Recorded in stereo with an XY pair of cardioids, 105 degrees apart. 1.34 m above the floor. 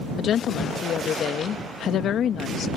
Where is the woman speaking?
65° left.